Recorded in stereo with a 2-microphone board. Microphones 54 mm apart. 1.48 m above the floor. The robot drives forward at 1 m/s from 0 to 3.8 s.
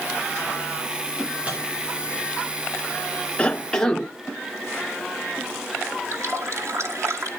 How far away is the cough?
About 0.6 m.